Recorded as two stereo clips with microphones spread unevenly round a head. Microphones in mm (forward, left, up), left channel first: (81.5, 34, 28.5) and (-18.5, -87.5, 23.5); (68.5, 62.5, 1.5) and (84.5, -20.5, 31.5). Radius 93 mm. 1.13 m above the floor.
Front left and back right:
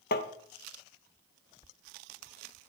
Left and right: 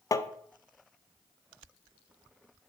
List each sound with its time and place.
0.1 s tapping: 40° left, 0.8 m